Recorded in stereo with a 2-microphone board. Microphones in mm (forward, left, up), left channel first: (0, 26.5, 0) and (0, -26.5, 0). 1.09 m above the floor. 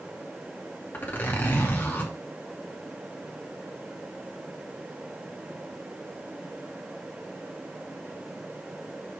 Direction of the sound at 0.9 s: 35° left (ahead or behind).